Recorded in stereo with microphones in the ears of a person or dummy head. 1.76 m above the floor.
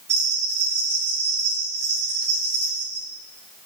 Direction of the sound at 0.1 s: 55° right (ahead or behind).